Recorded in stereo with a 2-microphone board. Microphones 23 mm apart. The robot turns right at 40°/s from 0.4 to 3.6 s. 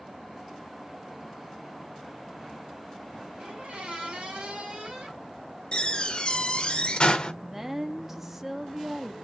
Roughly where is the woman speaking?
Centre.